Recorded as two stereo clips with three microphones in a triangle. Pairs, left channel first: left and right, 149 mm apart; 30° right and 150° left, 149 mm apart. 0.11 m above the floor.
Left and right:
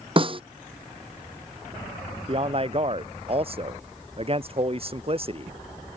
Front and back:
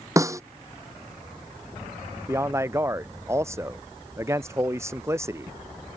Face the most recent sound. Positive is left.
turn(degrees=-140)